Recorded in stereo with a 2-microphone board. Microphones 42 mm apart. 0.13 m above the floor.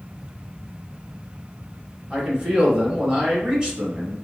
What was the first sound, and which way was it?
A man speaking, 20° right (ahead or behind).